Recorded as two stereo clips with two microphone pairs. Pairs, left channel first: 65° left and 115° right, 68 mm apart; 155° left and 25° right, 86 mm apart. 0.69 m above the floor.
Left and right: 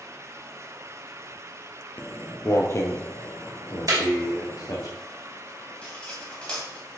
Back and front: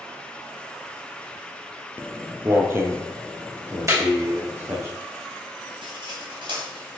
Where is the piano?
I don't hear a piano.